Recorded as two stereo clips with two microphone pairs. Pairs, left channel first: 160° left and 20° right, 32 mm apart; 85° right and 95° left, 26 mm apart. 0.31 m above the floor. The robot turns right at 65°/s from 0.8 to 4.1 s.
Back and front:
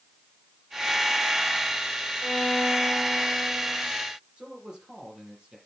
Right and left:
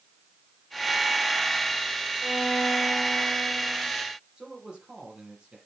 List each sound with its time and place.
2.2 s a violin: 155° right, 1.6 m; by 3.9 s 45° right, 1.6 m
4.4 s a man speaking: 45° left, 7 m